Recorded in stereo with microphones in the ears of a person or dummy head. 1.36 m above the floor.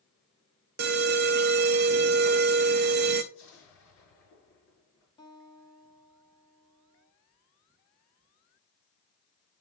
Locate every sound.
0.8 s an alarm: 50° right (ahead or behind), 0.8 m
3.3 s an explosion: 70° left (ahead or behind), 5 m
5.2 s a guitar: 25° left (ahead or behind), 1.4 m